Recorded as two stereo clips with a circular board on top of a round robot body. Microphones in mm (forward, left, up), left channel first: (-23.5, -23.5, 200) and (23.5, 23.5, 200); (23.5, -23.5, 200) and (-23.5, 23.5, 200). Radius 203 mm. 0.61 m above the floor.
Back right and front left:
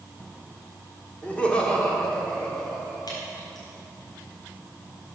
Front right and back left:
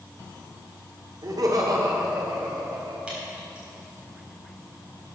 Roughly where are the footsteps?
No footsteps in this recording.